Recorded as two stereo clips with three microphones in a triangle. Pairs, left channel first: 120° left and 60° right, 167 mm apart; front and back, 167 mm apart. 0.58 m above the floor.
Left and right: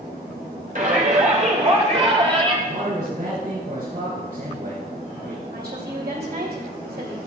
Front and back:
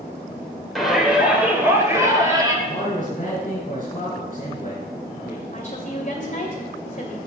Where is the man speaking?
35° right, 3.5 m.